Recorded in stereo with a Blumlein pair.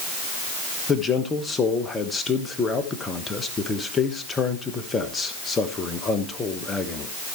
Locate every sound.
0.9 s a man speaking: 15° left, 1.4 m